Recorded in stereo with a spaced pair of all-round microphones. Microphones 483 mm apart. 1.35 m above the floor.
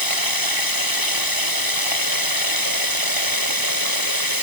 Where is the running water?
45° left (ahead or behind).